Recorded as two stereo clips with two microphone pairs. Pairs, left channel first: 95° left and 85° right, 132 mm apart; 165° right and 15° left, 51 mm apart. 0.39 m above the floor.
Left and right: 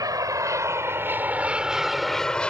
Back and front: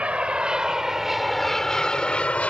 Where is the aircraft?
40° right; by 2.5 s 170° left.